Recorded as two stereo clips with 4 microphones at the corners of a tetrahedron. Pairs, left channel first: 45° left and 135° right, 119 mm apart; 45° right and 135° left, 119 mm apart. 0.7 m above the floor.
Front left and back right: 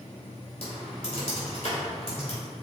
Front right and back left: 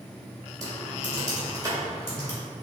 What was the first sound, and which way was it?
Typing on a keyboard, 80° left.